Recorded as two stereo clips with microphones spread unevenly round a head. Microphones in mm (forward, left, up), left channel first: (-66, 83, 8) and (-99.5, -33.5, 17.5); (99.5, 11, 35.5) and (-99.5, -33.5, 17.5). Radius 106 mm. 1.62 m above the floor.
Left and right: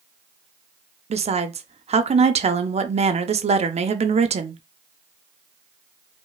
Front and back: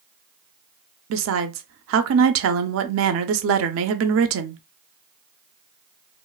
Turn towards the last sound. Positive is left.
turn(degrees=-140)